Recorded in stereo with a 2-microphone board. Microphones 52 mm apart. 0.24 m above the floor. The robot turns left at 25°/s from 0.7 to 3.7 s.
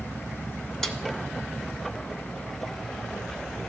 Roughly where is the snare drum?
Centre.